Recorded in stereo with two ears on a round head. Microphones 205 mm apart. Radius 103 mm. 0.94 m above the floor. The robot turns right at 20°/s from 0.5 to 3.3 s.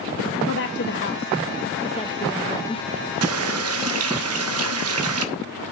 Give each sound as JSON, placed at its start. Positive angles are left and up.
{"t": 0.5, "sound": "a woman speaking", "side_deg": 55, "distance_m": 0.7}
{"t": 3.2, "sound": "a running tap", "side_deg": -65, "distance_m": 0.9}